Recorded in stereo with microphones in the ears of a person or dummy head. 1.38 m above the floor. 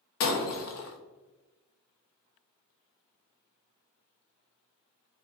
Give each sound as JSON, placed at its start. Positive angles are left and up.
{"t": 0.2, "sound": "breaking glass", "side_deg": 55, "distance_m": 0.9}